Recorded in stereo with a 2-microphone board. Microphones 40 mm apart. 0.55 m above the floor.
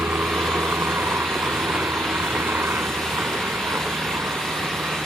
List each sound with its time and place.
0.0 s a helicopter: 75° right (ahead or behind)